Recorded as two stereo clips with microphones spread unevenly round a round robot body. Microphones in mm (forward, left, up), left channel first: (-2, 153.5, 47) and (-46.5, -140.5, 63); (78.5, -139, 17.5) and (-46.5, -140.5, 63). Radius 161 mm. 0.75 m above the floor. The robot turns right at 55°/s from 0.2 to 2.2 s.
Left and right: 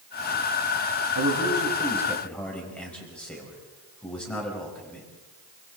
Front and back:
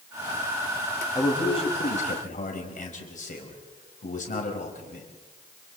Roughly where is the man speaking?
Ahead right.